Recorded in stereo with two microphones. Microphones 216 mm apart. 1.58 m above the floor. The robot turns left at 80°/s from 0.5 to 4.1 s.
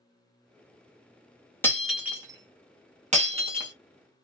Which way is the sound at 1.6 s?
10° left (ahead or behind).